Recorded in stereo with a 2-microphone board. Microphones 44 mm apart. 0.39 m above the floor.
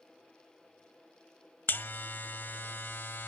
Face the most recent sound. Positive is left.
turn(degrees=55)  # may be behind; listen again after turning